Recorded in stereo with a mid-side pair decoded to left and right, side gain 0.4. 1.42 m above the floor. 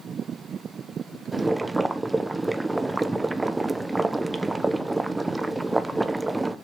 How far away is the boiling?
About 1.0 m.